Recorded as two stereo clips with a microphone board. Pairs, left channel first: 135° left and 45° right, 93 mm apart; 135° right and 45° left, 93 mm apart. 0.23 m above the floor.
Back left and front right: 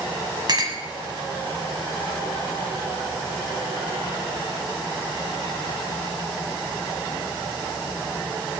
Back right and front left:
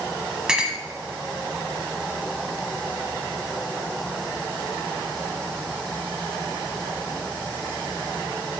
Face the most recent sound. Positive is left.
turn(degrees=-35)